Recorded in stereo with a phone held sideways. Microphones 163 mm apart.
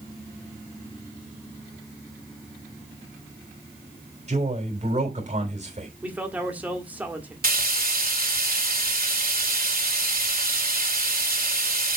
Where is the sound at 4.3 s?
45° right (ahead or behind), 3 m.